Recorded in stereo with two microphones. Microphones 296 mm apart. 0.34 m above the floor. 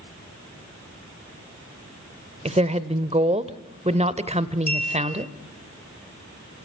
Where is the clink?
30° left (ahead or behind), 2.5 m.